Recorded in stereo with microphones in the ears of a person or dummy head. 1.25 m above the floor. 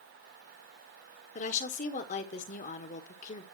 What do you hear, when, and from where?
1.4 s a woman speaking: 40° left (ahead or behind), 1.5 m